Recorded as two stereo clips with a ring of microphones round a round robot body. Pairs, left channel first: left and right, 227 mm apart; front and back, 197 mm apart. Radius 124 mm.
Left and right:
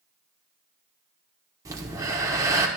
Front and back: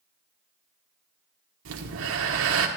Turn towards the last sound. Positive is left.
turn(degrees=-165)